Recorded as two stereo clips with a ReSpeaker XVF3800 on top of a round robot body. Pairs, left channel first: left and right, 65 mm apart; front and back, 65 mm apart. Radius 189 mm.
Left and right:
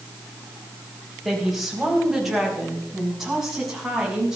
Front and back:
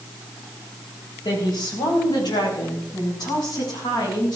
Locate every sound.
1.2 s a woman speaking: straight ahead, 4.5 m; by 4.4 s 5° right, 6.5 m